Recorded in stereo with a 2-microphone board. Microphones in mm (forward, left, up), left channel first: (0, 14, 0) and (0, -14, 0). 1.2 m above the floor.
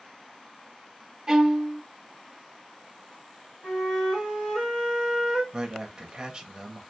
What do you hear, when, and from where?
1.3 s a violin: 20° right (ahead or behind), 0.6 m
3.6 s a flute: 25° left (ahead or behind), 1.6 m
5.5 s a man speaking: 30° right (ahead or behind), 0.7 m